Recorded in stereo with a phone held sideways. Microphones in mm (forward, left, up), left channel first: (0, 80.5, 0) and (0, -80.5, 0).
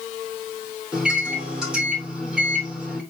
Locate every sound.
0.9 s a microwave: 5° right (ahead or behind), 3 m